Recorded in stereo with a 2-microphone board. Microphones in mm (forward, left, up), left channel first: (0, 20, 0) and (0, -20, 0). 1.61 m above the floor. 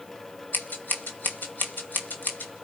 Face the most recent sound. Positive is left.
turn(degrees=50)  # may be behind; listen again after turning